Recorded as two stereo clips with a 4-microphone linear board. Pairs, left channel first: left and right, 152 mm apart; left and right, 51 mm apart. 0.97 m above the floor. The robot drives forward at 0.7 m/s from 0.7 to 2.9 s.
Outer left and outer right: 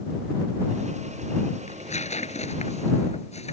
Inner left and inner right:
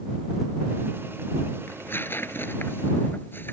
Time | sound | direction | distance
1.7 | tearing paper | 50° left (ahead or behind) | ?